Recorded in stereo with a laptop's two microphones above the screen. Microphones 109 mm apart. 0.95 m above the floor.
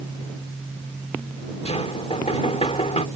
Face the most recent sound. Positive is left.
turn(degrees=85)